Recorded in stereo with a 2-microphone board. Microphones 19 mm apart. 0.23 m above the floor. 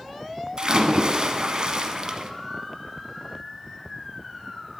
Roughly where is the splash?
Right.